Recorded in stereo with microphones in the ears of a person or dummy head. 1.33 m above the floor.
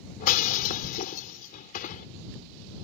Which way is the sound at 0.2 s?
45° left (ahead or behind).